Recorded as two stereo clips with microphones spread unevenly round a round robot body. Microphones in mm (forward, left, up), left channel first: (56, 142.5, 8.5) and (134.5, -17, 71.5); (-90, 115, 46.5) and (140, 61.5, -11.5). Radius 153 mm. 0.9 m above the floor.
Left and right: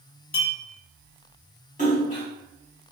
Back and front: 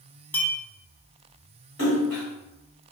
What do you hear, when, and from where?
0.3 s a clink: 85° left, 1.2 m
1.8 s a splash: 125° left, 1.6 m